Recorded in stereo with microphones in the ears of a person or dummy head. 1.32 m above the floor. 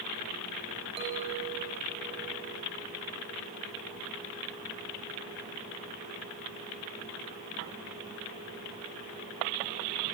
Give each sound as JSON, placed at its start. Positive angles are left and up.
{"t": 1.0, "sound": "a clink", "side_deg": -30, "distance_m": 4.0}